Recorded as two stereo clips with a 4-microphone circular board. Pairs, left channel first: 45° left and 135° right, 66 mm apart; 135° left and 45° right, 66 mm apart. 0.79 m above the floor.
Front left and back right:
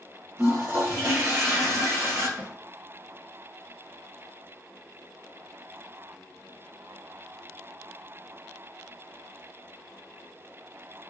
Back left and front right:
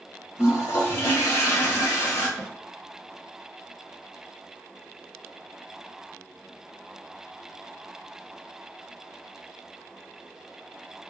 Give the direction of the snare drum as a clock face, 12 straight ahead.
3 o'clock.